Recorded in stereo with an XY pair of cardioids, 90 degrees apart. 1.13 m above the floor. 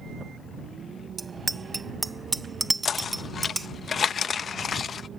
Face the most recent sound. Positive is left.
turn(degrees=50)